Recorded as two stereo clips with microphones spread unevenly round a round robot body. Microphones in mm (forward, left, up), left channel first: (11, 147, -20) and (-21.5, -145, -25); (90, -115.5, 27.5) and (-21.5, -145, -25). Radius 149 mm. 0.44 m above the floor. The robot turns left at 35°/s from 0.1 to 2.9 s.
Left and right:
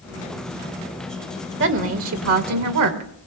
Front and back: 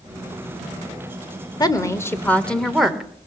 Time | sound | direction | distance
1.6 | a woman speaking | 55° right | 1.4 m